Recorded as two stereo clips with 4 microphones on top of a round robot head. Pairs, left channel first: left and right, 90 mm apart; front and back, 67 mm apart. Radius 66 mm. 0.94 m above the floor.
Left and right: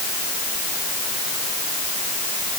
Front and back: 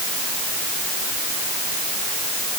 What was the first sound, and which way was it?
Only background noise.